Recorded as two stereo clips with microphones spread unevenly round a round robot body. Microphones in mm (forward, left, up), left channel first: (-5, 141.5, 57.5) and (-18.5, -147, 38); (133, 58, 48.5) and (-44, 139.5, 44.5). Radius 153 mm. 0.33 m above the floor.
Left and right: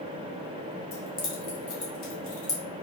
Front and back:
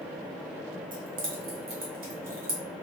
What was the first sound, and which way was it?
Keys jangling, 150° left.